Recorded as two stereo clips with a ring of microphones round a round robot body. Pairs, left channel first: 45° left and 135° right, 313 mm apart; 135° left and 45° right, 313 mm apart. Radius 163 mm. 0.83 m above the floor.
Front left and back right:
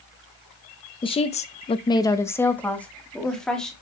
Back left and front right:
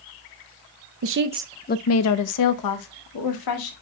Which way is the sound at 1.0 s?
25° right.